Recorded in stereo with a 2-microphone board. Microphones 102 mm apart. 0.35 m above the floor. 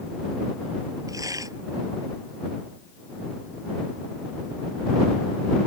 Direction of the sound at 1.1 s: 35° right (ahead or behind).